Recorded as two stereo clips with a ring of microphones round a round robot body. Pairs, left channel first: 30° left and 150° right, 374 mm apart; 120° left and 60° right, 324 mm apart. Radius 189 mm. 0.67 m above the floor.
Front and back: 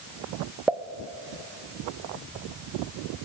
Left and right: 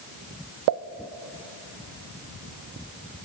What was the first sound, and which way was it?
A pop, 65° right.